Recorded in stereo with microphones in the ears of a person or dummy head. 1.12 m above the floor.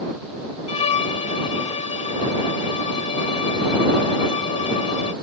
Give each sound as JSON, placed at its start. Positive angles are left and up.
{"t": 0.7, "sound": "a violin", "side_deg": 35}